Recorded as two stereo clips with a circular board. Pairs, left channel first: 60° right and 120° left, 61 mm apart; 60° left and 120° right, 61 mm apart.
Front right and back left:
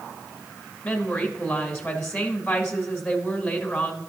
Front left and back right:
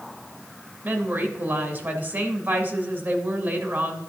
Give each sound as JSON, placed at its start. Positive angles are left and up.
{"t": 0.8, "sound": "a woman speaking", "azimuth_deg": -115, "distance_m": 1.6}